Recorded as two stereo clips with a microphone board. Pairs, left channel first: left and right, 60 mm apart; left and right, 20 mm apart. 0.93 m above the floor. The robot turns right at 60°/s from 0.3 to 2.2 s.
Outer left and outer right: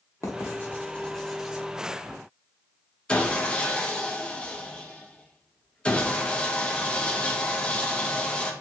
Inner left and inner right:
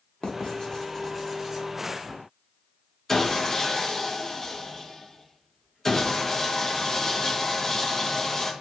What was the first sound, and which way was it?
Writing, 55° left (ahead or behind).